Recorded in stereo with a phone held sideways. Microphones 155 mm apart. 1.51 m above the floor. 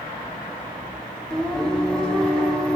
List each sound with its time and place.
1.3 s singing: 5° left (ahead or behind), 1.0 m